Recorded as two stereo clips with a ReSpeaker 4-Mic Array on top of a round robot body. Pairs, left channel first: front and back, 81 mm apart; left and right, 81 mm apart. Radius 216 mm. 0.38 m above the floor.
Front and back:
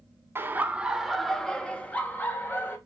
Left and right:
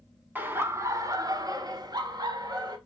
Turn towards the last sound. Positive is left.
turn(degrees=-65)